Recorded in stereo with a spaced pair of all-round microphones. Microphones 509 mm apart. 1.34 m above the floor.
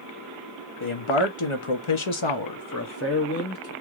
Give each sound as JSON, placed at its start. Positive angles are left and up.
{"t": 0.8, "sound": "a man speaking", "side_deg": 65, "distance_m": 1.2}